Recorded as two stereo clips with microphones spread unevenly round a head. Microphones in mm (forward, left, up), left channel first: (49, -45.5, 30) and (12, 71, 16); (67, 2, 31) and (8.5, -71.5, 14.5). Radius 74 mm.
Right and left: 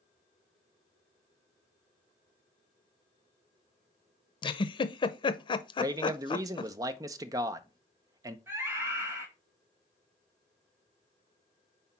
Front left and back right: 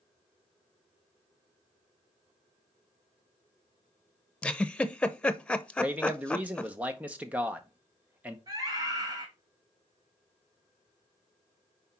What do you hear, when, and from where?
4.4 s a giggle: 35° right, 0.7 m
5.8 s a man speaking: 165° left, 0.7 m
8.5 s a scream: straight behind, 1.5 m